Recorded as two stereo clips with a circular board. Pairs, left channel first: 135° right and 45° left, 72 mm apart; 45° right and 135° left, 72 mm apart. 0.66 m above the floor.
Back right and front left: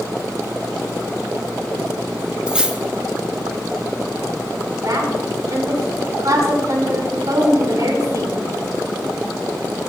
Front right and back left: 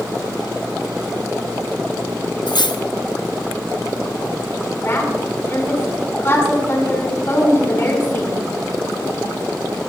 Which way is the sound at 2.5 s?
30° right.